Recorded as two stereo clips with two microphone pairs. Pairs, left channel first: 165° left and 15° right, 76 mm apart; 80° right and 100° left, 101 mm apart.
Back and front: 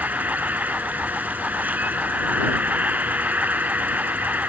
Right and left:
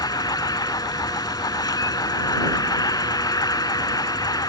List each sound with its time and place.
0.0 s an insect: 70° right